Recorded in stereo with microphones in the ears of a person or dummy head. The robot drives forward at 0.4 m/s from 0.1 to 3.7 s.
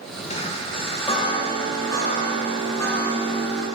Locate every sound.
0.3 s a chime: 35° left (ahead or behind), 0.9 m; by 3.6 s 15° left (ahead or behind), 2 m